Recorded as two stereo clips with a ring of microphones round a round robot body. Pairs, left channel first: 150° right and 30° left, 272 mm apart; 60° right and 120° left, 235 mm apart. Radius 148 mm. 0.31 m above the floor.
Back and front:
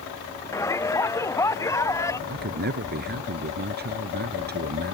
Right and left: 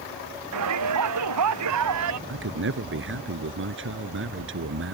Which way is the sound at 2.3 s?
85° left.